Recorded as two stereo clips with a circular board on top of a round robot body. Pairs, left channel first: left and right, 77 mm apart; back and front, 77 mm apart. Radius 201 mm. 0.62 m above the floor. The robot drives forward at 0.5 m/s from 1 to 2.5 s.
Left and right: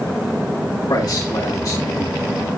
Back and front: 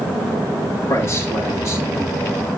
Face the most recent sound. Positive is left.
turn(degrees=130)